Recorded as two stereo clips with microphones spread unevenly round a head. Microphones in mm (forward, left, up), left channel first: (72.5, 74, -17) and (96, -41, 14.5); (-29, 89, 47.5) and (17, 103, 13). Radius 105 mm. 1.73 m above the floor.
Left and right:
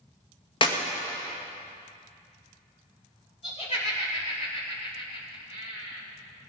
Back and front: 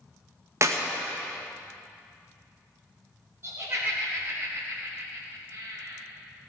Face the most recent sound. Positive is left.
turn(degrees=60)